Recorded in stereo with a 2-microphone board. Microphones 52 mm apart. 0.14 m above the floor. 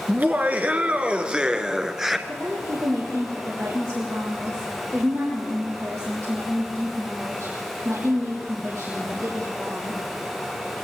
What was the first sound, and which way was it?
Laughter, 40° right (ahead or behind).